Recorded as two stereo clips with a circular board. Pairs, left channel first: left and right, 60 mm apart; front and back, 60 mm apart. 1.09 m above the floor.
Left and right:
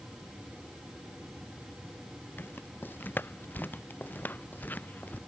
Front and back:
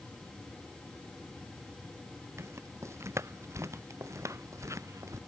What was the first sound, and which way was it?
Footsteps, 140° left.